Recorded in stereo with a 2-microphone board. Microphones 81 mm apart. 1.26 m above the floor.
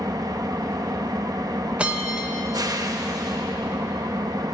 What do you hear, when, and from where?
0.0 s an engine running: 50° right (ahead or behind), 0.9 m
1.8 s a bell: 15° right (ahead or behind), 1.3 m